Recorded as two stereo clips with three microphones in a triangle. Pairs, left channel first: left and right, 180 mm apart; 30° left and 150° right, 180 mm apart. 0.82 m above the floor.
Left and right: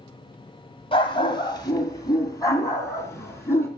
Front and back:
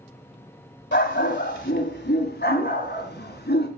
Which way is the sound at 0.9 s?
30° left.